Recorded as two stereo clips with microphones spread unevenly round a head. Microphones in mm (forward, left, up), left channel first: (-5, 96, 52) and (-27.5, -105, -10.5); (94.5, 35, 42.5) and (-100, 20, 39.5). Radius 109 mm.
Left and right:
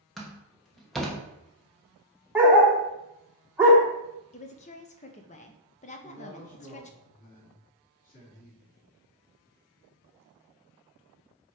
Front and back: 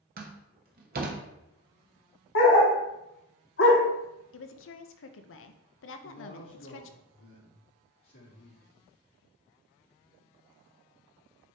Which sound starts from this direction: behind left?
A door slam, at 0.2 s.